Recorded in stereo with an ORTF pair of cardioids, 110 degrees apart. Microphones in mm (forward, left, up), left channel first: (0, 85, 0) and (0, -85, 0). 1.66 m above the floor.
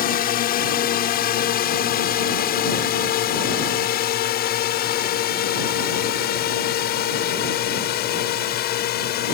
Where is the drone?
60° left; by 9.3 s 70° left.